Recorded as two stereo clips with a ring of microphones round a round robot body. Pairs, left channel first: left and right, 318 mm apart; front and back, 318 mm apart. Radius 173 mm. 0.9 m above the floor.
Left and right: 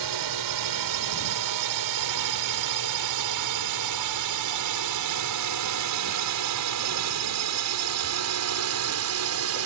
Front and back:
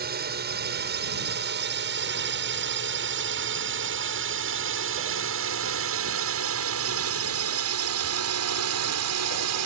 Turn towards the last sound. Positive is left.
turn(degrees=-135)